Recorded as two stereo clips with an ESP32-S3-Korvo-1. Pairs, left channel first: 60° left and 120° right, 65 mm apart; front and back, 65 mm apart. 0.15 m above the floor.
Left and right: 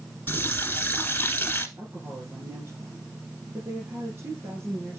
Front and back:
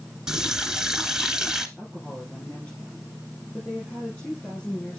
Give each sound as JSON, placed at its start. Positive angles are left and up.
{"t": 0.3, "sound": "a running tap", "azimuth_deg": 105, "distance_m": 1.1}
{"t": 1.8, "sound": "a woman speaking", "azimuth_deg": -75, "distance_m": 5.0}